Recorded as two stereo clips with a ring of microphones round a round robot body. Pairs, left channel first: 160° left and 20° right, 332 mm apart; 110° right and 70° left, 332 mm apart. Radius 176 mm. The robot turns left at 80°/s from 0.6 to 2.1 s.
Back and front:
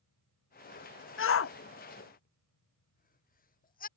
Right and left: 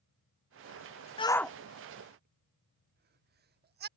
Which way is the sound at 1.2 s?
175° right.